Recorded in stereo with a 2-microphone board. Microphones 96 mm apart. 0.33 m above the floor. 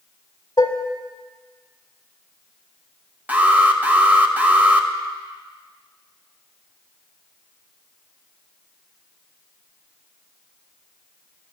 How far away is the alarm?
About 0.7 m.